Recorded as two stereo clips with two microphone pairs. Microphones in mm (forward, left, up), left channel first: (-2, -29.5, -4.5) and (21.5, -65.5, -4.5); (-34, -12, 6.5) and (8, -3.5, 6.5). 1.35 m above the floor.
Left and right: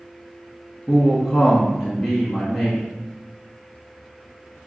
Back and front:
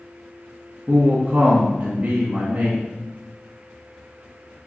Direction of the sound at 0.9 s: 70° left.